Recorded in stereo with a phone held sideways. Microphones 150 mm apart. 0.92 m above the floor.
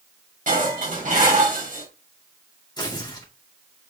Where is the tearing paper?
30° left (ahead or behind), 2.5 m.